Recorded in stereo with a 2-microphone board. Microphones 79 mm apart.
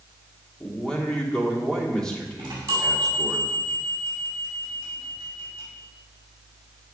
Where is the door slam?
I don't hear a door slam.